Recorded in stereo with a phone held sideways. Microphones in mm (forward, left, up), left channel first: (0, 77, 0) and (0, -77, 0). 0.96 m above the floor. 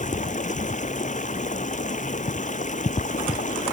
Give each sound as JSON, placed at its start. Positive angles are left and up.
{"t": 0.0, "sound": "running water", "side_deg": 50}